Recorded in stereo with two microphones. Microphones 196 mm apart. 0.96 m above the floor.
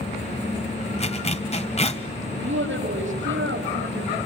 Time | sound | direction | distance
1.0 | a zipper | 35° left (ahead or behind) | 1.5 m
2.4 | a woman speaking | 85° right | 5 m